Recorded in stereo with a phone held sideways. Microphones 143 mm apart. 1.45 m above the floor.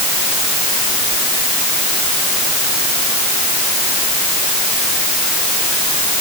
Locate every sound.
Only background noise.